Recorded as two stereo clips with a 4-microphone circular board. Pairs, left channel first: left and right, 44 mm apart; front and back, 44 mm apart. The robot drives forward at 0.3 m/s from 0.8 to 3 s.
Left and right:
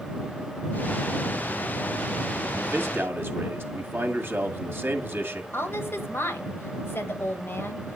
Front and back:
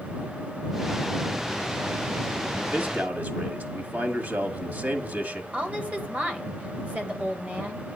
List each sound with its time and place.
2.6 s a man speaking: 130° right, 1.7 m
5.5 s a woman speaking: 120° left, 1.8 m